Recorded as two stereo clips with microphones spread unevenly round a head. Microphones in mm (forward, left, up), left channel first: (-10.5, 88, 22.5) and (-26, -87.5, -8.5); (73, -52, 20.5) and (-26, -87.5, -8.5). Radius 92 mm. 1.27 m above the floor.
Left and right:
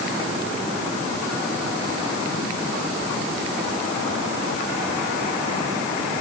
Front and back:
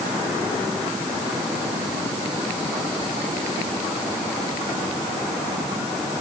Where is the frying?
I don't hear frying.